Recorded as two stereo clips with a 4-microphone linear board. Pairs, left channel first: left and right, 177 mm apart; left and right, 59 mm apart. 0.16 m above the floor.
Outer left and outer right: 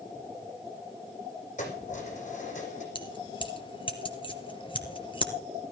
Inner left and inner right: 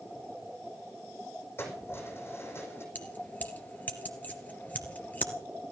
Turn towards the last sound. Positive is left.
turn(degrees=30)  # may be behind; listen again after turning